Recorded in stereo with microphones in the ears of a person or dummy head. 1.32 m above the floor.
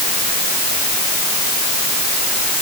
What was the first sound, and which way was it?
Only background noise.